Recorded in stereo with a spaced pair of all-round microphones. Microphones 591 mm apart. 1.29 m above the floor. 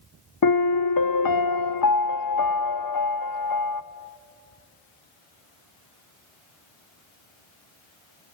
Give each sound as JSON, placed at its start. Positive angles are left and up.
{"t": 0.4, "sound": "a piano", "side_deg": 40, "distance_m": 0.5}